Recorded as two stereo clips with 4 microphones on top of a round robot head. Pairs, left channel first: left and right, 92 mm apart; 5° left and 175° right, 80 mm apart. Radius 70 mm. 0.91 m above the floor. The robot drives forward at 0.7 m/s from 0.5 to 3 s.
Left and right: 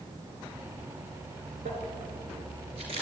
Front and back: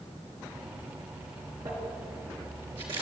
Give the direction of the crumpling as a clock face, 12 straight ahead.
4 o'clock.